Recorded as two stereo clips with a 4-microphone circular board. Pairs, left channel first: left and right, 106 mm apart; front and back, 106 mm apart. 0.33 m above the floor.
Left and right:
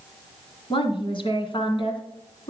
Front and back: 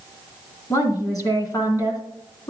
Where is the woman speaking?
55° left, 2.5 m.